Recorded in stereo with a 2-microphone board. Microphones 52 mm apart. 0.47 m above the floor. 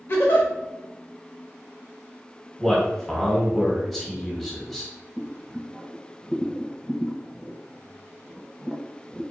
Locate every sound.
0.1 s a giggle: 45° left (ahead or behind), 1.0 m
2.6 s a man speaking: 5° left (ahead or behind), 1.1 m
5.2 s boiling: 10° right (ahead or behind), 0.7 m